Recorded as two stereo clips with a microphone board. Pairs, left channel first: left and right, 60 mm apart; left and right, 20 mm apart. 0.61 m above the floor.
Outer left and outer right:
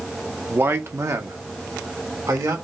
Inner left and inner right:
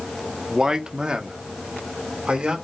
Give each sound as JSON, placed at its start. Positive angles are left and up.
{"t": 0.5, "sound": "a man speaking", "side_deg": -35, "distance_m": 0.6}